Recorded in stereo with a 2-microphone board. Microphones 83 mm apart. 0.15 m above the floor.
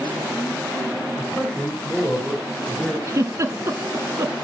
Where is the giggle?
40° right (ahead or behind), 0.9 m.